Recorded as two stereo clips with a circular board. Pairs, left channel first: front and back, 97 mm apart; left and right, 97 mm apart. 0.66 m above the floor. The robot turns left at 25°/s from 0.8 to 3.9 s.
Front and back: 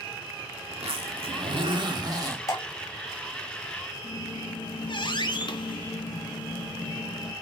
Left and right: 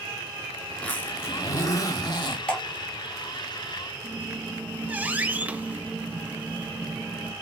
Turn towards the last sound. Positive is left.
turn(degrees=-20)